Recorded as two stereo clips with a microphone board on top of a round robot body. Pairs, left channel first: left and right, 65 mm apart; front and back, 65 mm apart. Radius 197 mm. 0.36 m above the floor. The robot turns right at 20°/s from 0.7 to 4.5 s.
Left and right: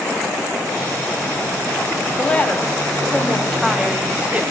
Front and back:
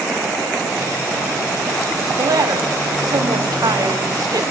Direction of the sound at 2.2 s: 155° left.